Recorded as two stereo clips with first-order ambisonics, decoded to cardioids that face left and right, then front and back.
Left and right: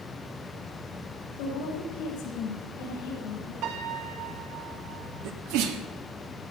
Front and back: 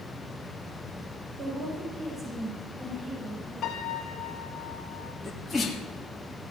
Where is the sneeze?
85° right, 1.8 m.